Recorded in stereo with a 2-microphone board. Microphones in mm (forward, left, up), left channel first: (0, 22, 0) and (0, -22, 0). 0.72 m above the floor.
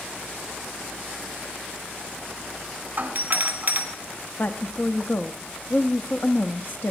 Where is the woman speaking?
50° left (ahead or behind), 0.7 m.